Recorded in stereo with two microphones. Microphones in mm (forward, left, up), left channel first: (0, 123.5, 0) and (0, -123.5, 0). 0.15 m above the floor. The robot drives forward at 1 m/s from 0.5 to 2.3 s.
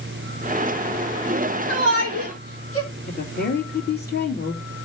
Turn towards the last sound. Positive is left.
turn(degrees=45)  # may be behind; listen again after turning